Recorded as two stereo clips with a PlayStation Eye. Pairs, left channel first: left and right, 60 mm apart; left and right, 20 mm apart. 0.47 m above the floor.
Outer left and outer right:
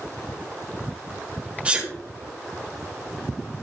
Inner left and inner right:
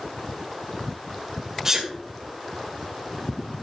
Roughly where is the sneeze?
Right.